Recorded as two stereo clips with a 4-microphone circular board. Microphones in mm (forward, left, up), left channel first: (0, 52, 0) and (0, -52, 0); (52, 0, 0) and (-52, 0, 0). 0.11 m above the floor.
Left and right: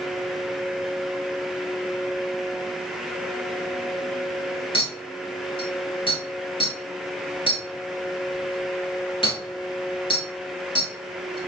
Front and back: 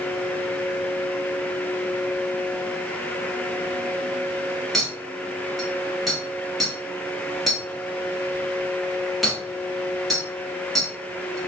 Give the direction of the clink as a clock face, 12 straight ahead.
9 o'clock.